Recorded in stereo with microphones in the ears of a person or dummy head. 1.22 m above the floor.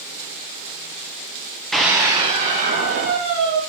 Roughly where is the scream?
Centre.